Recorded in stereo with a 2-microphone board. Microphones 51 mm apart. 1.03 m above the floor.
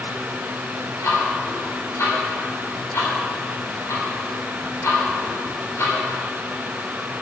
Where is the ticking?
70° left (ahead or behind), 3.5 m.